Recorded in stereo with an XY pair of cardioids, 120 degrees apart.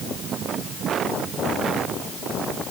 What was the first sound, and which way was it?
Only background noise.